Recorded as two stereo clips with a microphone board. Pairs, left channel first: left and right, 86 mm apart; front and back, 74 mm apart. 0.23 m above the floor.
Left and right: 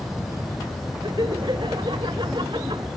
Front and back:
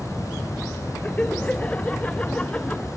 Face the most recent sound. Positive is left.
turn(degrees=-75)